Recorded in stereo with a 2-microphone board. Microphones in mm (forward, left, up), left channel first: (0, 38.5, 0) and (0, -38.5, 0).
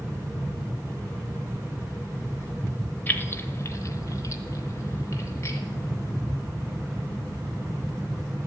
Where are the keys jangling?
25° left (ahead or behind), 0.8 m; by 5.6 s 40° left (ahead or behind), 1.9 m.